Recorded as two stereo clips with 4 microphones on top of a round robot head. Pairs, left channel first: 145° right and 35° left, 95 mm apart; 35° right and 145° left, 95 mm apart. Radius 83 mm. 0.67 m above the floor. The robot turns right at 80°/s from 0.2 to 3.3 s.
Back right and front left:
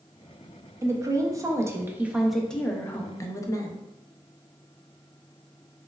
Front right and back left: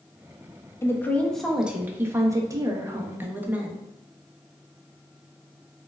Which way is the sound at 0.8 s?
Straight ahead.